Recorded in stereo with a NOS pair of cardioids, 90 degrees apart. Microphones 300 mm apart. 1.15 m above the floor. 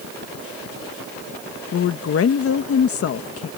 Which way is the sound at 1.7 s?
50° left.